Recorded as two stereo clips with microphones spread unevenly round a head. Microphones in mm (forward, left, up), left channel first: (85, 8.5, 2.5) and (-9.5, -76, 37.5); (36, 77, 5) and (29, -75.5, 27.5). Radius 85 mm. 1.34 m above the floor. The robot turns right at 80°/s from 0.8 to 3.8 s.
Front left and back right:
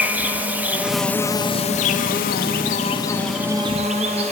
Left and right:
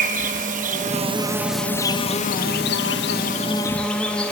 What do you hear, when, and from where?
0.0 s an insect: 65° right, 1.3 m; by 4.3 s 175° left, 1.3 m